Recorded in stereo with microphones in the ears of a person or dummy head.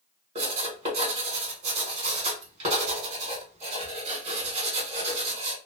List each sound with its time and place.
0.3 s writing: 45° right (ahead or behind), 1.6 m